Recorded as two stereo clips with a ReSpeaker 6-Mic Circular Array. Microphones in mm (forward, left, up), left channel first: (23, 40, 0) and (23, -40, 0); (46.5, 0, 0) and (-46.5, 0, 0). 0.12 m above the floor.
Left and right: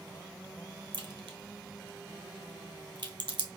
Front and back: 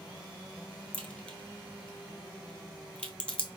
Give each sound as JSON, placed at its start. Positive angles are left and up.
{"t": 0.9, "sound": "a crack", "azimuth_deg": -75, "distance_m": 0.8}